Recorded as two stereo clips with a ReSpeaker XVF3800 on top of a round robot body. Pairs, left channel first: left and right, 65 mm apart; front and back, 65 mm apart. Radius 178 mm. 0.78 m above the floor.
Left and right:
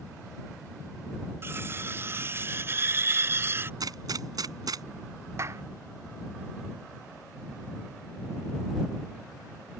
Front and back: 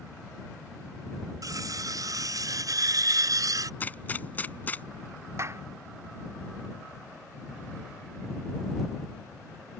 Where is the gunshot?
65° right.